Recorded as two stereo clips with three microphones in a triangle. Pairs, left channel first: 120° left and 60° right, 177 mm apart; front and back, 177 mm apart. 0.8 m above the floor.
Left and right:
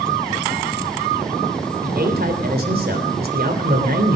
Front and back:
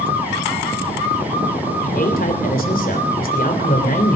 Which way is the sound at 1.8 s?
35° right.